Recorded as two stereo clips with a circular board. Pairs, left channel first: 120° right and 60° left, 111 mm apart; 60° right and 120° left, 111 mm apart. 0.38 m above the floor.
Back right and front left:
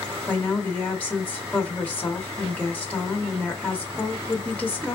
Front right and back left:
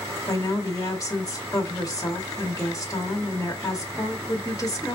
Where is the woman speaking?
55° right, 1.0 m.